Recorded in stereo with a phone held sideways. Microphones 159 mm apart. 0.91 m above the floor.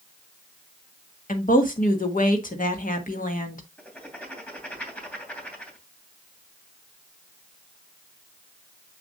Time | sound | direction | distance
1.3 | a woman speaking | 60° left (ahead or behind) | 1.6 m
3.8 | writing | 10° left (ahead or behind) | 2.5 m